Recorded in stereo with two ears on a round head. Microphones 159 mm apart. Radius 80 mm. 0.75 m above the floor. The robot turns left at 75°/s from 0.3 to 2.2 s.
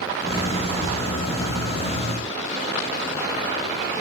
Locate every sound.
0.9 s a thud: 35° right (ahead or behind); by 1.0 s 25° right (ahead or behind)